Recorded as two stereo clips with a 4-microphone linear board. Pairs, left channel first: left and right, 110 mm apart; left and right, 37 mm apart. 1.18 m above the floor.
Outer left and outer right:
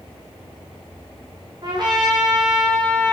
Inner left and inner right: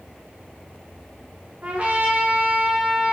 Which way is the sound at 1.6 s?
40° right (ahead or behind).